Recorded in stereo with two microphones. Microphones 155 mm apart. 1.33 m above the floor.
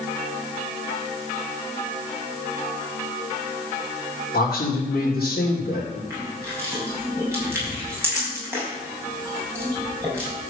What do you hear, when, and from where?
4.3 s a man speaking: 75° left (ahead or behind), 3 m
6.1 s crushing: 15° right (ahead or behind), 5.5 m